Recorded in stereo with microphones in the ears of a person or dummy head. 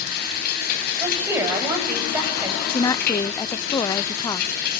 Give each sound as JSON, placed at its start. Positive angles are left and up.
{"t": 0.0, "sound": "running water", "side_deg": 55, "distance_m": 9.5}
{"t": 1.0, "sound": "a woman speaking", "side_deg": -15, "distance_m": 9.0}
{"t": 2.7, "sound": "a woman speaking", "side_deg": 15, "distance_m": 0.5}